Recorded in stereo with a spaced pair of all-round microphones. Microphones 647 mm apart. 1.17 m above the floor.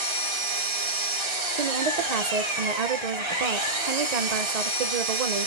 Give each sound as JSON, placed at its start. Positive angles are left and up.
{"t": 0.0, "sound": "an engine running", "side_deg": -45, "distance_m": 1.8}
{"t": 1.6, "sound": "a woman speaking", "side_deg": -75, "distance_m": 0.7}